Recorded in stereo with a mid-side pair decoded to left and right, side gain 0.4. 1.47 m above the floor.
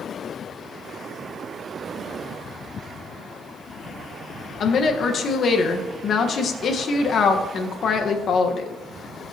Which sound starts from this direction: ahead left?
A woman speaking, at 4.6 s.